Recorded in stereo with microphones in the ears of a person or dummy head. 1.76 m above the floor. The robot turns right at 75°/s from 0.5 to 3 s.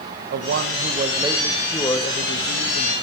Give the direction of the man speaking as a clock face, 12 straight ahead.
3 o'clock.